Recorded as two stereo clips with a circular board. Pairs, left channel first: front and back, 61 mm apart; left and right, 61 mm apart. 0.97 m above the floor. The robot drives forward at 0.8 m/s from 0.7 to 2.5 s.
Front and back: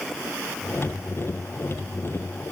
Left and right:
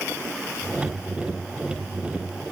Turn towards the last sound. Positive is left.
No sound to turn to.